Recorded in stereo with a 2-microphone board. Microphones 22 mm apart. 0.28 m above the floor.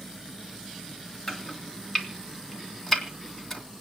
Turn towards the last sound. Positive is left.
turn(degrees=15)  # may be behind; listen again after turning